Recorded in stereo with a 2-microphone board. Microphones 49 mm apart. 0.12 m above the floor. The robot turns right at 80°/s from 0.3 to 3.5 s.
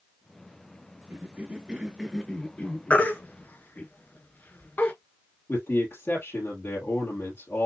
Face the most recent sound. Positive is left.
turn(degrees=55)  # may be behind; listen again after turning